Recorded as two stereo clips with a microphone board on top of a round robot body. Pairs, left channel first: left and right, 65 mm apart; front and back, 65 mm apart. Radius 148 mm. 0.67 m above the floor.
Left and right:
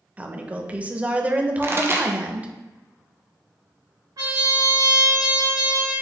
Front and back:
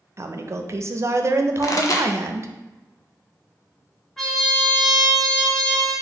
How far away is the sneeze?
I don't hear a sneeze.